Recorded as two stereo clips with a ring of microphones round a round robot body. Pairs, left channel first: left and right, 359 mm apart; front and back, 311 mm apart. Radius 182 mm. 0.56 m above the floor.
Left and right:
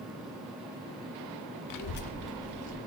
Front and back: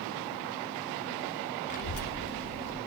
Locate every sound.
1.7 s a child speaking: 70° left, 0.6 m; by 2.8 s 25° right, 0.9 m